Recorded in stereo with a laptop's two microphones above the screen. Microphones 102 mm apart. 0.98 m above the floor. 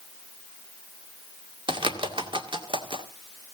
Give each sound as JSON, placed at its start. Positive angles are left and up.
{"t": 1.7, "sound": "a bird", "side_deg": -55, "distance_m": 2.0}